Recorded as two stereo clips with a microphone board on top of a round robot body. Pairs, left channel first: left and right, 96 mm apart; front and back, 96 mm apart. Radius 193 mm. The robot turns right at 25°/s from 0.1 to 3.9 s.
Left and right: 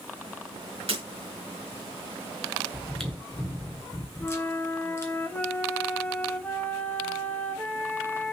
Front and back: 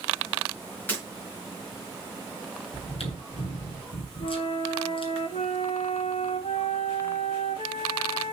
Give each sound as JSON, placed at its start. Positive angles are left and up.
{"t": 0.9, "sound": "breaking glass", "azimuth_deg": -75, "distance_m": 6.0}
{"t": 2.7, "sound": "chewing", "azimuth_deg": -5, "distance_m": 3.5}
{"t": 4.2, "sound": "a flute", "azimuth_deg": 15, "distance_m": 1.1}